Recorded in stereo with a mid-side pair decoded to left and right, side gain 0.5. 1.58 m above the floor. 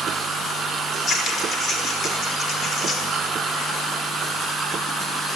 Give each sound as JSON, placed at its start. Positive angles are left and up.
{"t": 0.9, "sound": "scissors", "azimuth_deg": 40, "distance_m": 5.5}